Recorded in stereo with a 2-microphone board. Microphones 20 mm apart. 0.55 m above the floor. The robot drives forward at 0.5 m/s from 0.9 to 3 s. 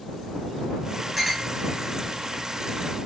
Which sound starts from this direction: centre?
A clink, at 1.2 s.